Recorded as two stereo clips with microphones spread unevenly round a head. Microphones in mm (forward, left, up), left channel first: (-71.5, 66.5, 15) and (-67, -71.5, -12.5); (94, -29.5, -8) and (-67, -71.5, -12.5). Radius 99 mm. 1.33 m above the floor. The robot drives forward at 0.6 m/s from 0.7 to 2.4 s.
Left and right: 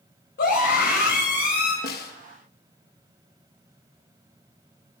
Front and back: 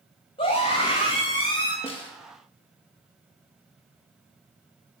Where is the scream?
80° left, 8 m; by 1.7 s 85° left, 8 m.